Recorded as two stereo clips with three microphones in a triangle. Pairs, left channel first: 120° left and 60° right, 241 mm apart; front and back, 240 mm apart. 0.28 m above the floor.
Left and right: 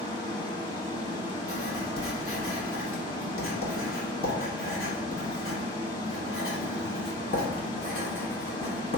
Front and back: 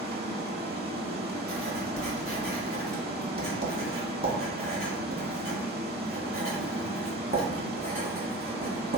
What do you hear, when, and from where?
0.0 s running water: straight behind, 0.9 m
1.5 s writing: 135° left, 1.1 m